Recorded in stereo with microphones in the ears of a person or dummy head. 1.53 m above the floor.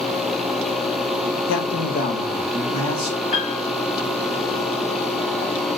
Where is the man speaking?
65° left (ahead or behind), 0.7 m; by 3.2 s 40° left (ahead or behind), 1.6 m.